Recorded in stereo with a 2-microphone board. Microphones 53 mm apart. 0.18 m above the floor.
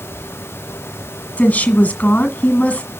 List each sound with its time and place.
1.4 s a woman speaking: 30° left (ahead or behind), 1.5 m